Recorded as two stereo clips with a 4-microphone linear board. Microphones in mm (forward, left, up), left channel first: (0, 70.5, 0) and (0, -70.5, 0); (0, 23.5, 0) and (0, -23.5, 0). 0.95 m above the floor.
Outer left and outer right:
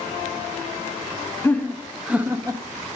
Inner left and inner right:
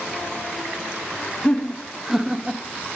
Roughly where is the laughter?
Centre.